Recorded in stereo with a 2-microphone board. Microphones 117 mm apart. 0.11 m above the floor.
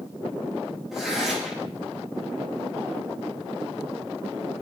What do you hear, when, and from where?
0.9 s tearing paper: centre (ahead or behind), 10 m